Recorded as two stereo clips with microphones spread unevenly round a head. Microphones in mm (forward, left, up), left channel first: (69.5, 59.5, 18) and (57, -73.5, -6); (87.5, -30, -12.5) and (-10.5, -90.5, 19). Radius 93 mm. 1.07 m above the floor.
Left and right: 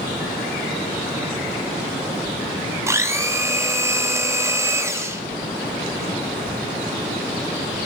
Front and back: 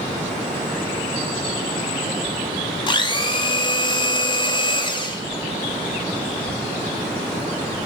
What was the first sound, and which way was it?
A blender, 20° right.